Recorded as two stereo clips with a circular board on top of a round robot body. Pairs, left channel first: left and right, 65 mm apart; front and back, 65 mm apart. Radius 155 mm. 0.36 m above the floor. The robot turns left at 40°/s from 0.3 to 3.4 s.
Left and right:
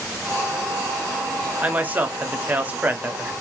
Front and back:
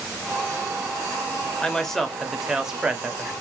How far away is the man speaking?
About 0.8 m.